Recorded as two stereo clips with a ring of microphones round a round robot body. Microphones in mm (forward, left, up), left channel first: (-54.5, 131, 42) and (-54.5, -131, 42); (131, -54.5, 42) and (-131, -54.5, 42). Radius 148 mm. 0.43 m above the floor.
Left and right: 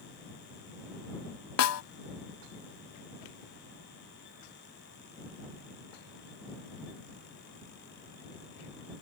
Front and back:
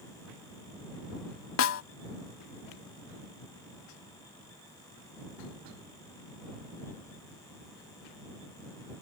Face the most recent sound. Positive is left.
turn(degrees=50)